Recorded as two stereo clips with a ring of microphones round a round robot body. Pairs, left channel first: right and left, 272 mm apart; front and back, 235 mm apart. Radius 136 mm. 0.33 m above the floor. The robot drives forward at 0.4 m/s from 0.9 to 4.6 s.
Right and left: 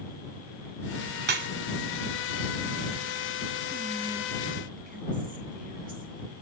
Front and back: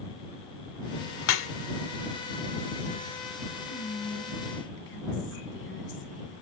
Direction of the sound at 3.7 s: 25° left.